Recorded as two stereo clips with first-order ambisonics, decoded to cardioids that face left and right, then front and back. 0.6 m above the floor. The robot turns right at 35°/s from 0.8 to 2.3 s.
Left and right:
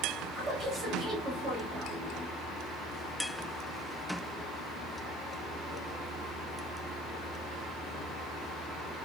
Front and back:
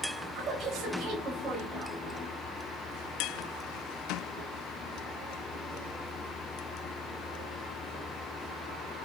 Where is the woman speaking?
155° right, 1.0 m; by 2.0 s 115° right, 1.0 m.